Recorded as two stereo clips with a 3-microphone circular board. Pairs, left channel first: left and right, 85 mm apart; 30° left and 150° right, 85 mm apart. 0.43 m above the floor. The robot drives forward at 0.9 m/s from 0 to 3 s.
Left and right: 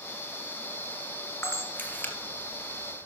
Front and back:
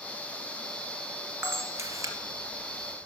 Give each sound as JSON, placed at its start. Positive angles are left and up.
{"t": 1.4, "sound": "a camera shutter", "azimuth_deg": 155, "distance_m": 1.5}